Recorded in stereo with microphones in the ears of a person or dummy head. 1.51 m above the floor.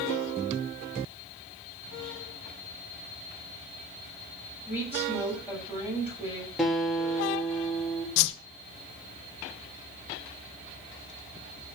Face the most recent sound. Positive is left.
turn(degrees=70)  # may be behind; listen again after turning